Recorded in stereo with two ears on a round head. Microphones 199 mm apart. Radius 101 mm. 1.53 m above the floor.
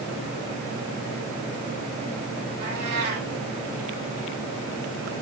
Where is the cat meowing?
75° right (ahead or behind), 6.5 m.